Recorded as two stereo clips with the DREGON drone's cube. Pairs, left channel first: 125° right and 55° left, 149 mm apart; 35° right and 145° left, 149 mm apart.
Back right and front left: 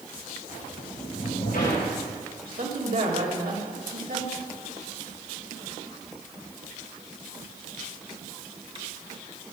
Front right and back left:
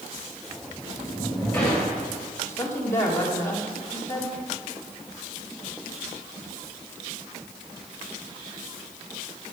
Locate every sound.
0.5 s a sliding door: 120° right, 5 m
2.4 s a woman speaking: 40° left, 2 m